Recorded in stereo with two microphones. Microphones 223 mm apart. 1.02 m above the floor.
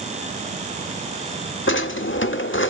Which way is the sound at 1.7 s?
60° left (ahead or behind).